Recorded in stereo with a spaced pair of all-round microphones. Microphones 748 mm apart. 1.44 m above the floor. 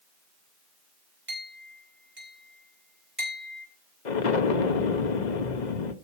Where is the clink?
15° right (ahead or behind), 4 m.